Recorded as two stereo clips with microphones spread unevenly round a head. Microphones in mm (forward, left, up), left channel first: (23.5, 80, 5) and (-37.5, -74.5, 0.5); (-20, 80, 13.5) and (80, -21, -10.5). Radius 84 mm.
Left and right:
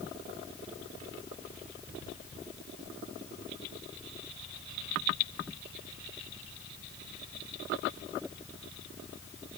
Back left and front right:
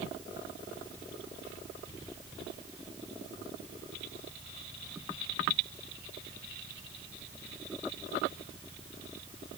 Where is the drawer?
No drawer in this recording.